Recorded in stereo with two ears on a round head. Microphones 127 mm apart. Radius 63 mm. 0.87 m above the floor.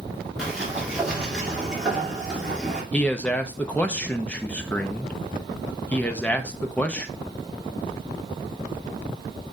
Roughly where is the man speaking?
Centre.